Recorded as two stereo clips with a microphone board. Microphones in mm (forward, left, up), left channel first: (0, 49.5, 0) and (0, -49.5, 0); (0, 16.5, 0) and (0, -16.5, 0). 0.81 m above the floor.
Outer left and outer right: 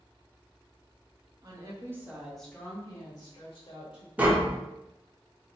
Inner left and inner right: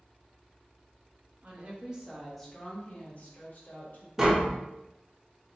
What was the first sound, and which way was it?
A woman speaking, 45° right (ahead or behind).